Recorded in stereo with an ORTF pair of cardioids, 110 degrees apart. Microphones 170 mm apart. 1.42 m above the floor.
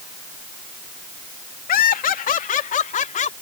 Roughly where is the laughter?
Ahead left.